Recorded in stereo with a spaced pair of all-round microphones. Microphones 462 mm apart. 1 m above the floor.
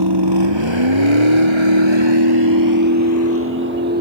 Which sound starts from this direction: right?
A vehicle, at 0.0 s.